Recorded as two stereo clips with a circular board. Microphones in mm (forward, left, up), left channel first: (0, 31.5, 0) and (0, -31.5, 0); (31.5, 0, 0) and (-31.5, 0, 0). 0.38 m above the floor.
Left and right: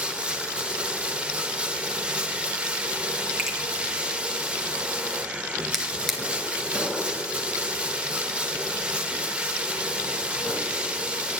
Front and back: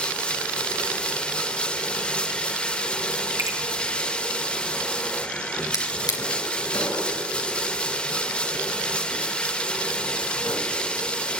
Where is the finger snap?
170° right, 2 m.